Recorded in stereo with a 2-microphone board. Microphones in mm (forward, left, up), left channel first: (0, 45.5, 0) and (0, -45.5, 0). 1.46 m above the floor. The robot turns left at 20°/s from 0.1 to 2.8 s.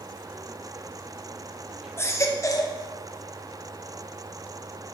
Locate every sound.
2.0 s a baby crying: 25° left (ahead or behind), 0.6 m; by 2.8 s 40° left (ahead or behind), 0.6 m